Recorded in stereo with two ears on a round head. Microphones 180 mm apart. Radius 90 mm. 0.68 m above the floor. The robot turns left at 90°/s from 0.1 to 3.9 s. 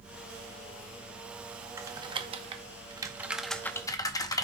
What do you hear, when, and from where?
1.8 s typing on a keyboard: 15° right (ahead or behind), 0.8 m; by 4.5 s 20° left (ahead or behind), 0.8 m